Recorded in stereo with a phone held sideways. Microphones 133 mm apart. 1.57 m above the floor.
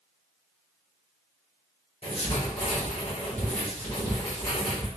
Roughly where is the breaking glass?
I don't hear breaking glass.